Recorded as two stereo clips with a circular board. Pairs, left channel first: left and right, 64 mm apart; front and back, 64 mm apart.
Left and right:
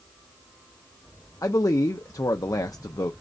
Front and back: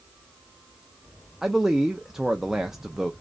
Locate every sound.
1.4 s a man speaking: 100° left, 0.5 m